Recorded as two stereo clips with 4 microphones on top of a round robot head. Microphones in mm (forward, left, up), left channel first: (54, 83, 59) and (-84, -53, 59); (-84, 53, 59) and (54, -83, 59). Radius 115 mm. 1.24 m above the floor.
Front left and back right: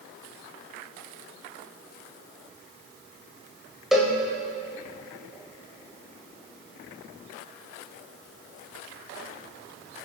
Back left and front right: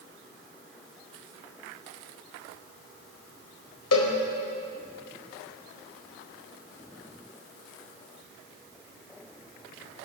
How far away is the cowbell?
About 1.9 m.